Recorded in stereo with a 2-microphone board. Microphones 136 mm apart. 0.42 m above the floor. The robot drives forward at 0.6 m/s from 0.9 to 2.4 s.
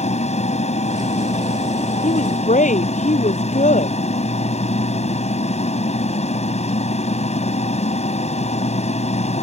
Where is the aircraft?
55° left (ahead or behind).